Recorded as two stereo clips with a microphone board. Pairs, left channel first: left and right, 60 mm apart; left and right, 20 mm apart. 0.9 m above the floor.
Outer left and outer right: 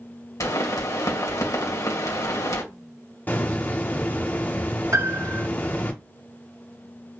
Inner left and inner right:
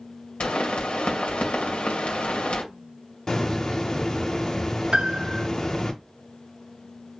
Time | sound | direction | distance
0.4 | a pop | 75° left (ahead or behind) | 2.5 m
3.3 | a hiss | 35° left (ahead or behind) | 1.3 m
4.9 | a piano | 60° right (ahead or behind) | 0.7 m